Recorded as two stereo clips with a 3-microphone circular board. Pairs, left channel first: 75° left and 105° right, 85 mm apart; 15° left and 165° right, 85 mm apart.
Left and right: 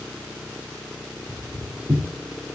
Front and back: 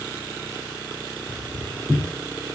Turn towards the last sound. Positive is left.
turn(degrees=-65)